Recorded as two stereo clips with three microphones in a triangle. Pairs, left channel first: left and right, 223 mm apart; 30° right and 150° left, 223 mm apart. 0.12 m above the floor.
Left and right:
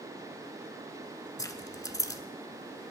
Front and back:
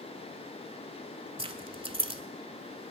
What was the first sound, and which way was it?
Keys jangling, 140° left.